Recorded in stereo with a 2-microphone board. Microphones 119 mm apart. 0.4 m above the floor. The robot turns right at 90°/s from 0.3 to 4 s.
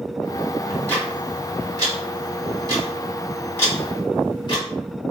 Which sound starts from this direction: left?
Ticking, at 0.7 s.